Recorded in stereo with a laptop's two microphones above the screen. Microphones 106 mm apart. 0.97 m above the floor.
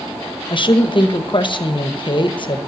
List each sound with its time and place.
0.5 s a woman speaking: 50° left (ahead or behind), 0.9 m